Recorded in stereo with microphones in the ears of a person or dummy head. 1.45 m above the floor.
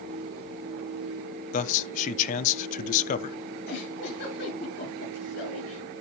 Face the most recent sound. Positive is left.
turn(degrees=65)  # may be behind; listen again after turning